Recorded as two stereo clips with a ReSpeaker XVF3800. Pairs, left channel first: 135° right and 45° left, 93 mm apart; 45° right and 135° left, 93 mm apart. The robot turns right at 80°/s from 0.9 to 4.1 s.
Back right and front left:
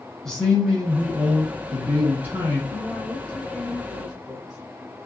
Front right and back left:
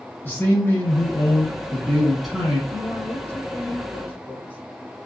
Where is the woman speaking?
135° right, 1.1 m; by 4.6 s 20° right, 1.1 m.